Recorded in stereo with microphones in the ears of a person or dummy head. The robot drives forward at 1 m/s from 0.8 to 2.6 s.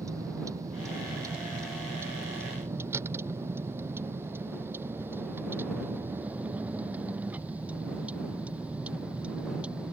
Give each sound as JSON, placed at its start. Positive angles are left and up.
{"t": 0.0, "sound": "a vehicle", "side_deg": -15}